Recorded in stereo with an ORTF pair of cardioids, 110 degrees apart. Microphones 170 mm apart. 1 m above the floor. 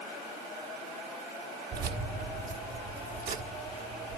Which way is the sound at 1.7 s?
55° right.